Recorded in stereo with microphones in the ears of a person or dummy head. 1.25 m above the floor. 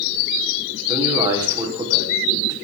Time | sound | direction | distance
0.9 | a man speaking | 20° right (ahead or behind) | 4 m